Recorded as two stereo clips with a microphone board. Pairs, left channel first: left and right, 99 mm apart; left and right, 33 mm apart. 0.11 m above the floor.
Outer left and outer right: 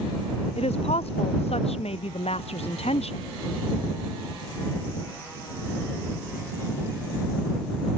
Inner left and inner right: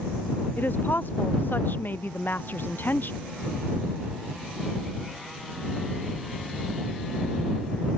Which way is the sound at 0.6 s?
85° left.